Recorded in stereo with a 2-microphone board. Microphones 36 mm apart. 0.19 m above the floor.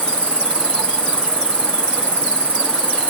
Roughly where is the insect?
Left.